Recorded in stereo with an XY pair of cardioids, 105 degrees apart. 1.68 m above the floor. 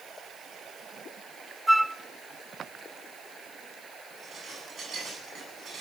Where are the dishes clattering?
50° right, 10 m.